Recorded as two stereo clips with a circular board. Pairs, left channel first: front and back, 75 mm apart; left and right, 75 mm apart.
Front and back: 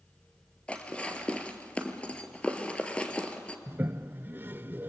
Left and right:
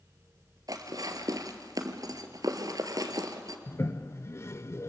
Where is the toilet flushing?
125° left, 0.5 m.